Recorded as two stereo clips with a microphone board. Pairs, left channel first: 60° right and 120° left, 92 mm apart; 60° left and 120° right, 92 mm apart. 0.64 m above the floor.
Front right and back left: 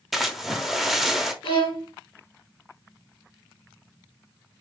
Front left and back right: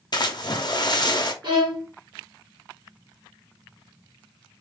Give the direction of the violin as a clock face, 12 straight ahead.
3 o'clock.